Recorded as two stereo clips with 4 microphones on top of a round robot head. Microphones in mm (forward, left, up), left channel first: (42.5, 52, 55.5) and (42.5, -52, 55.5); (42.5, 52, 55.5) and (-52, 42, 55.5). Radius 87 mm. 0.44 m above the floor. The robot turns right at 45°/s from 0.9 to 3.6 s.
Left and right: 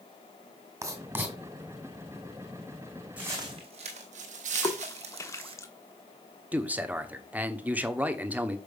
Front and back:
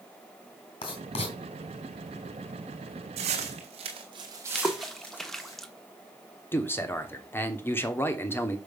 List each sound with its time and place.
0.8 s writing: 30° right, 2 m; by 1.4 s 10° right, 2 m
3.2 s footsteps: 170° right, 1.6 m; by 5.5 s 60° right, 1.5 m
4.5 s a splash: 85° left, 1.2 m
6.5 s a man speaking: 30° right, 1.3 m